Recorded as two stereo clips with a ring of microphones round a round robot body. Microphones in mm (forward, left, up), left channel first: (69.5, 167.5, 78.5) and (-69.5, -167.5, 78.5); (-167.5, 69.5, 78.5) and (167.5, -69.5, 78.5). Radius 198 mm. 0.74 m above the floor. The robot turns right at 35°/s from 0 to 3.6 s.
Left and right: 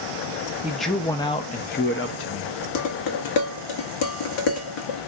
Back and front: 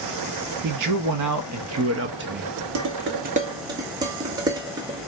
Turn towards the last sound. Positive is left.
turn(degrees=55)